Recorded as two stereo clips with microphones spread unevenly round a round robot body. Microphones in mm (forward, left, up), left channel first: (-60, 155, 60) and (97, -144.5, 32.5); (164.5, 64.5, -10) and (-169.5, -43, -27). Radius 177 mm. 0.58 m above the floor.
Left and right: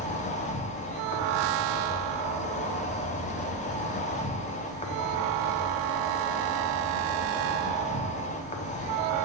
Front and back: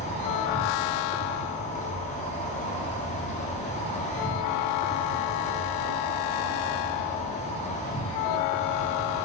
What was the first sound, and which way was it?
An insect, 65° left.